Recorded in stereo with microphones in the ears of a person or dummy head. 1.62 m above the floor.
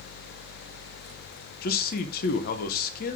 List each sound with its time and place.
1.6 s a man speaking: 55° left (ahead or behind), 1.3 m